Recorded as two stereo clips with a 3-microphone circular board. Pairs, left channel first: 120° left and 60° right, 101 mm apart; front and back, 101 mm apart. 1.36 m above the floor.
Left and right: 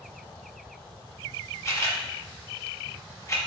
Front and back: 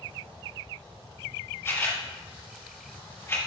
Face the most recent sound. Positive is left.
turn(degrees=60)